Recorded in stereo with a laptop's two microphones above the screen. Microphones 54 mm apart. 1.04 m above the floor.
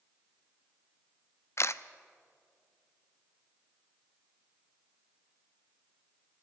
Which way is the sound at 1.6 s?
60° left (ahead or behind).